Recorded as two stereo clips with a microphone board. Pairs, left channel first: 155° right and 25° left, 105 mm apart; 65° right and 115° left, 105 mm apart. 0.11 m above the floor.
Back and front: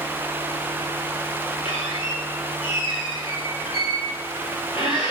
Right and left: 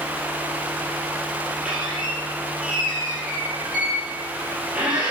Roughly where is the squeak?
Behind.